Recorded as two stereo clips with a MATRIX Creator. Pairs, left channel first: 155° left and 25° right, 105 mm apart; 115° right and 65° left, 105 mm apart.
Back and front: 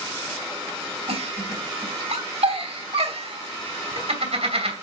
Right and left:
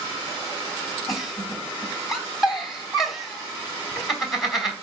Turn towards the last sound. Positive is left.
turn(degrees=-20)